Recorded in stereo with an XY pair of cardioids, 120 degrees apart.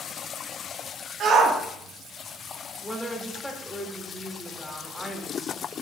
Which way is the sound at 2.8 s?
5° left.